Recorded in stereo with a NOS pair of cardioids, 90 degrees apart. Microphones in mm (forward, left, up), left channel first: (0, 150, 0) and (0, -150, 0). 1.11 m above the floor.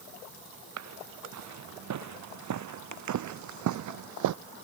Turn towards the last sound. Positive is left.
turn(degrees=-80)